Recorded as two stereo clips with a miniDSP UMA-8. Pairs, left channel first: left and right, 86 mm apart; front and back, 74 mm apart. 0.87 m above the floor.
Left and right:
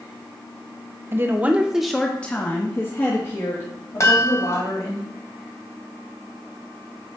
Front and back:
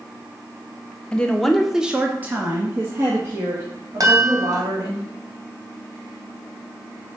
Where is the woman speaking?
60° right, 1.0 m; by 5.0 s 135° left, 3 m.